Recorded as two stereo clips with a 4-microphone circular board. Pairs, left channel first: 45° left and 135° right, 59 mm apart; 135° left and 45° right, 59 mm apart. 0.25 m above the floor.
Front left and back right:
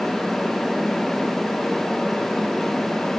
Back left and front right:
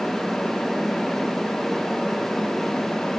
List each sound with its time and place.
Only background noise.